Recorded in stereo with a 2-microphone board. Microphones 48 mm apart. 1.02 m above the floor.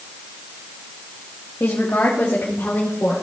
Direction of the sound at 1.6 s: 60° left (ahead or behind).